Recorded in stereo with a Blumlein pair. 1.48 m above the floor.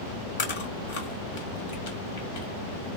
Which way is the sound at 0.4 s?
55° left.